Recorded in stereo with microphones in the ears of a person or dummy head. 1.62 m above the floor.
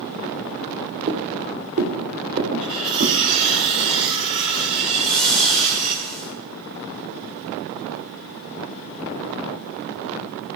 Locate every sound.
1.1 s footsteps: 45° right (ahead or behind), 2.5 m; by 3.3 s 40° right (ahead or behind), 3.5 m
2.6 s cutlery clinking: 25° right (ahead or behind), 4.5 m
4.9 s a whoosh: 5° left (ahead or behind), 1.8 m